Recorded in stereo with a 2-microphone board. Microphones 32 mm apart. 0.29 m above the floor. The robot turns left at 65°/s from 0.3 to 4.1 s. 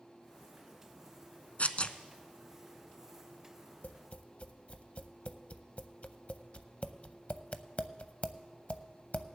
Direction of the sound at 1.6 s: 60° left (ahead or behind).